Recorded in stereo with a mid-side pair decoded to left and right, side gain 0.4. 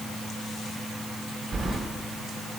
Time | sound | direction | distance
1.5 | keys jangling | 35° right | 1.5 m